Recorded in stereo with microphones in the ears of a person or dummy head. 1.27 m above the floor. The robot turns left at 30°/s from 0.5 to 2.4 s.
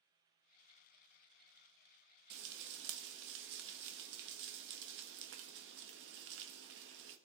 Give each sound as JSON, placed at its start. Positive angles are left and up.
{"t": 2.3, "sound": "frying", "side_deg": -60, "distance_m": 1.2}